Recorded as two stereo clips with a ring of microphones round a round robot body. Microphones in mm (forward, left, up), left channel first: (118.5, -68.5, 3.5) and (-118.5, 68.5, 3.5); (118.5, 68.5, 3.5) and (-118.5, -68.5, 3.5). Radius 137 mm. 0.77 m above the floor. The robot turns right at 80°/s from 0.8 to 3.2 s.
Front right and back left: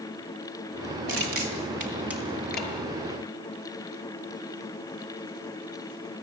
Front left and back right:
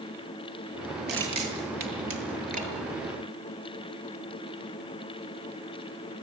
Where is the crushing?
155° left, 6 m; by 2.7 s 75° right, 6 m.